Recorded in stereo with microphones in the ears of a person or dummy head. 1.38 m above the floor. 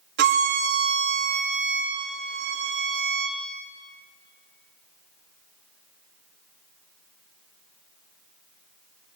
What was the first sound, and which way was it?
A violin, 65° right (ahead or behind).